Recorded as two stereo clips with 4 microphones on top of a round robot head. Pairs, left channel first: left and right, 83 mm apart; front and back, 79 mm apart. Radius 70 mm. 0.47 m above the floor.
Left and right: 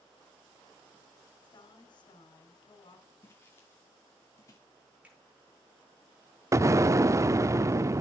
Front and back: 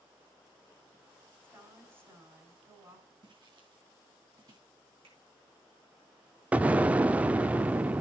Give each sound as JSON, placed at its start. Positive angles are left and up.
{"t": 1.4, "sound": "a woman speaking", "azimuth_deg": 120, "distance_m": 4.5}
{"t": 3.2, "sound": "footsteps", "azimuth_deg": 155, "distance_m": 4.0}
{"t": 5.0, "sound": "a finger snap", "azimuth_deg": -165, "distance_m": 7.5}
{"t": 6.5, "sound": "an explosion", "azimuth_deg": -120, "distance_m": 0.5}